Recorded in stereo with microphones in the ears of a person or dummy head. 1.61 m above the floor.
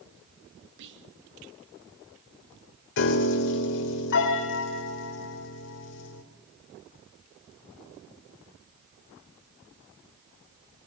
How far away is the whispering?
About 2 m.